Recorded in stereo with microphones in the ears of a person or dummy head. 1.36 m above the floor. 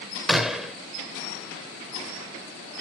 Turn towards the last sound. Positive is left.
turn(degrees=0)  # may be behind; listen again after turning